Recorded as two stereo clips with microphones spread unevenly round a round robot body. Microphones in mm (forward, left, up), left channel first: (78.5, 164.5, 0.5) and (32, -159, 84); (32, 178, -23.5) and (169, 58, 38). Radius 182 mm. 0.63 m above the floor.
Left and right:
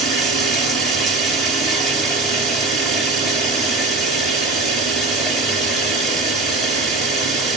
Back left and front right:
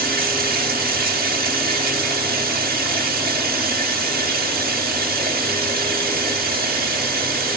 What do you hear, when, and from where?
0.0 s running water: 5° right, 3 m